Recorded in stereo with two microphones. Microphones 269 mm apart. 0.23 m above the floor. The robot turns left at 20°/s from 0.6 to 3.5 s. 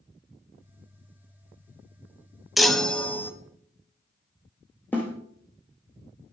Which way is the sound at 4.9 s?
5° left (ahead or behind).